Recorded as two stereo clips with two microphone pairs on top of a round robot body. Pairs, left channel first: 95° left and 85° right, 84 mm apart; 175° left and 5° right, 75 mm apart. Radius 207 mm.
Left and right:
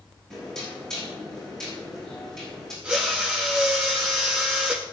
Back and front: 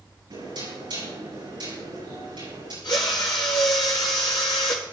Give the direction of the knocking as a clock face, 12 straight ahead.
12 o'clock.